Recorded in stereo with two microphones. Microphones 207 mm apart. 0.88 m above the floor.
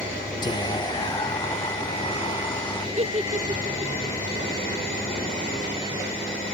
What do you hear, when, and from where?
0.4 s whispering: 20° left (ahead or behind), 1.0 m
3.0 s a giggle: 30° right (ahead or behind), 0.5 m